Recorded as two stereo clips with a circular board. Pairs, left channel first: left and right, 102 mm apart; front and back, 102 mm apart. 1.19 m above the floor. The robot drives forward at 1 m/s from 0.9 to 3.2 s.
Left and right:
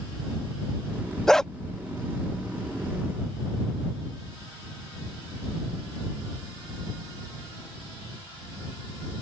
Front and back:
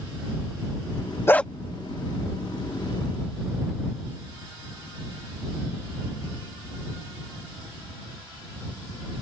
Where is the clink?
No clink in this recording.